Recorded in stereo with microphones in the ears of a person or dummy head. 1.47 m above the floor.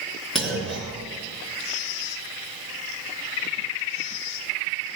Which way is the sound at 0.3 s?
Centre (ahead or behind).